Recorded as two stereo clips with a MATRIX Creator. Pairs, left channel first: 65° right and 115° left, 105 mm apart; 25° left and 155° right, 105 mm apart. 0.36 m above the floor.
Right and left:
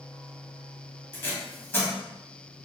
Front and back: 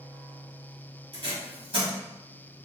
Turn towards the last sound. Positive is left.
turn(degrees=-135)